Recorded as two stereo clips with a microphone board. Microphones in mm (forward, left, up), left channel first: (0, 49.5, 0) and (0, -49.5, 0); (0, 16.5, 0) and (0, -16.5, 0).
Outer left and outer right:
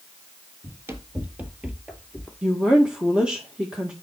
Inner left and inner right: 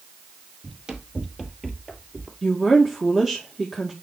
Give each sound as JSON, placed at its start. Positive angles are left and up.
{"t": 0.6, "sound": "running footsteps", "side_deg": -25, "distance_m": 2.0}
{"t": 2.4, "sound": "a woman speaking", "side_deg": -10, "distance_m": 1.9}